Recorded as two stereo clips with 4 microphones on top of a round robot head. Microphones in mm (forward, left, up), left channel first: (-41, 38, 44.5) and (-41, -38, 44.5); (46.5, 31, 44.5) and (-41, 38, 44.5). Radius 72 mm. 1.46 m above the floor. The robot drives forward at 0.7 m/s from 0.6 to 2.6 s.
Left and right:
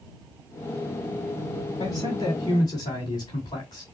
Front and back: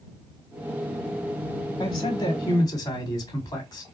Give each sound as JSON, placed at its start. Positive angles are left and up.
{"t": 1.8, "sound": "a man speaking", "azimuth_deg": 35, "distance_m": 2.5}